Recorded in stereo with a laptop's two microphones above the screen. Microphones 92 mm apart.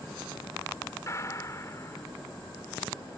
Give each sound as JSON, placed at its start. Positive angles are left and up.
{"t": 1.1, "sound": "a gunshot", "side_deg": 35}